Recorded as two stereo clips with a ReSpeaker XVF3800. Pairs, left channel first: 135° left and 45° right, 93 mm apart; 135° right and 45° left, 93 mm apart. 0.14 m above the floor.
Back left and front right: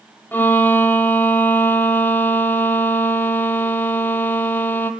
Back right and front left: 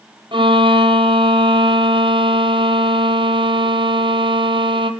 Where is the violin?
65° left, 1.9 m.